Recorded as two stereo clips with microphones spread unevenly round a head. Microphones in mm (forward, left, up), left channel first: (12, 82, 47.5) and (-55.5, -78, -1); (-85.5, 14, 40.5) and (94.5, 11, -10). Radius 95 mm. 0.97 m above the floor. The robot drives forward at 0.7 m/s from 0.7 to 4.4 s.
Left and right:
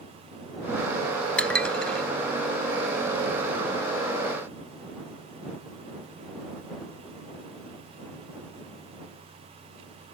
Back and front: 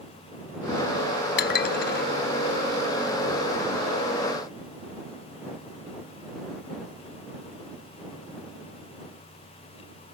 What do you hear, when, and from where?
1.4 s dishes clattering: 150° left